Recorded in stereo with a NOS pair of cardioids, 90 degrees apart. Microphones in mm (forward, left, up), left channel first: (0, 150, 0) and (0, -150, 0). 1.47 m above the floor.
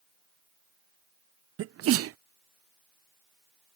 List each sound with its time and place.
1.6 s a sneeze: 50° right